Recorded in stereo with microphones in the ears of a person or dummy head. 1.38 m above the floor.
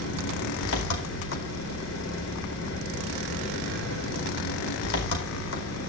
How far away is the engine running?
About 4.5 m.